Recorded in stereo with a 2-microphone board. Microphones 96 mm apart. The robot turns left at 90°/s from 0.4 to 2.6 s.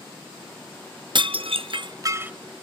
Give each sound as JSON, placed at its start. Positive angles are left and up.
{"t": 1.1, "sound": "dishes clattering", "side_deg": -55, "distance_m": 0.6}